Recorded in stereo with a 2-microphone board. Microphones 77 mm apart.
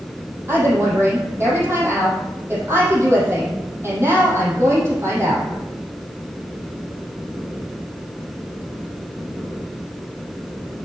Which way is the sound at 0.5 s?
35° right (ahead or behind).